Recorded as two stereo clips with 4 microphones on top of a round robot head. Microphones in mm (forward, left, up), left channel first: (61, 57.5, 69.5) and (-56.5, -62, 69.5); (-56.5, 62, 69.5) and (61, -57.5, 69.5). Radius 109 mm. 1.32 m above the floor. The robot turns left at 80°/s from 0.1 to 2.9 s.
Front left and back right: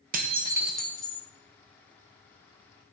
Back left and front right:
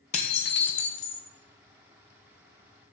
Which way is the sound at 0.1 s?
175° right.